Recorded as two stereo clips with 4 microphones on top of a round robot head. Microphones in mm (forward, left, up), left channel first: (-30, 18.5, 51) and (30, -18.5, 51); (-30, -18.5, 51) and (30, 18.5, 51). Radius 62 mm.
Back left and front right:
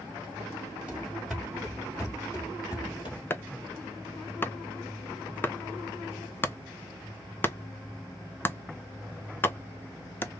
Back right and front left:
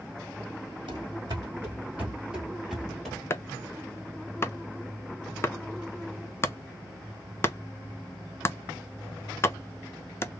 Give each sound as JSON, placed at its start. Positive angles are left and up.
{"t": 0.9, "sound": "running footsteps", "azimuth_deg": 40, "distance_m": 1.4}
{"t": 3.3, "sound": "chopping", "azimuth_deg": -170, "distance_m": 0.7}